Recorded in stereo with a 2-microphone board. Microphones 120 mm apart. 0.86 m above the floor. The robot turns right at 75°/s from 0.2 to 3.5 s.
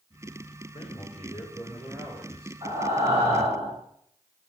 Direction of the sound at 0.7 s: 95° left.